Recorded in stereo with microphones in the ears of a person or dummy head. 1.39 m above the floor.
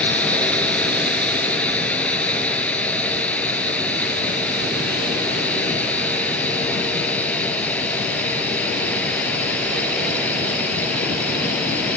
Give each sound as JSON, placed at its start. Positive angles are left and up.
{"t": 0.0, "sound": "a drone", "side_deg": 10}